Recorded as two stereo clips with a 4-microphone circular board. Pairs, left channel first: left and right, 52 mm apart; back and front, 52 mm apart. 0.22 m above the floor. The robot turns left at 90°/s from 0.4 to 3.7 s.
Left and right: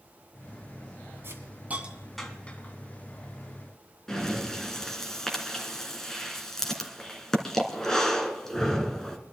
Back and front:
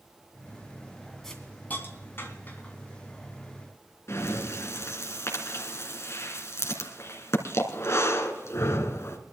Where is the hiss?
100° right, 2 m; by 2.7 s 125° left, 2 m.